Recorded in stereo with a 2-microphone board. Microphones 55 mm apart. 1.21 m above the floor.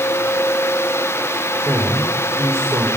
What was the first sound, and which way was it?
A man speaking, 60° right (ahead or behind).